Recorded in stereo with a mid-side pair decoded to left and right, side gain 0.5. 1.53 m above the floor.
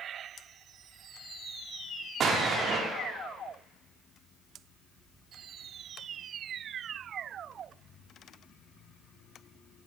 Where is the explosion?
55° right, 0.5 m.